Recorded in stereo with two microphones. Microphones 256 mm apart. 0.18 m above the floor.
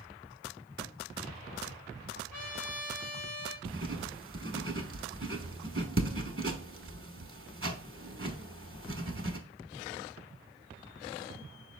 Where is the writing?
50° right (ahead or behind), 0.8 m.